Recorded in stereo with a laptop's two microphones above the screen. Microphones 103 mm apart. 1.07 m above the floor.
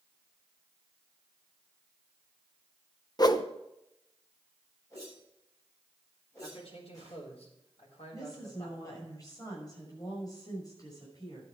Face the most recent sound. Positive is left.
turn(degrees=35)  # may be behind; listen again after turning